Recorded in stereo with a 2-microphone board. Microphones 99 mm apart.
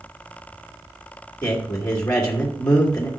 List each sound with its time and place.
1.4 s a man speaking: 30° left (ahead or behind), 1.8 m